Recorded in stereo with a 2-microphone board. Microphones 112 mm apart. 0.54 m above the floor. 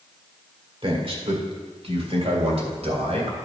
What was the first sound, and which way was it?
A man speaking, 50° right (ahead or behind).